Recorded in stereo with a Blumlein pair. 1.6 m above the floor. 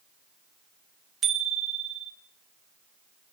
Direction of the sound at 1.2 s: 25° right.